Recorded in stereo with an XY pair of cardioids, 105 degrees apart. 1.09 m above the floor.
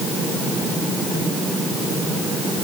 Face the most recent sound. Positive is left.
No sound to turn to.